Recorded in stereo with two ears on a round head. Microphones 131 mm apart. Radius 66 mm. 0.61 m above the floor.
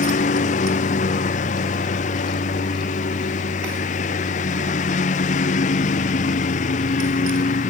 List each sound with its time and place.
0.0 s a lawn mower: 55° left (ahead or behind)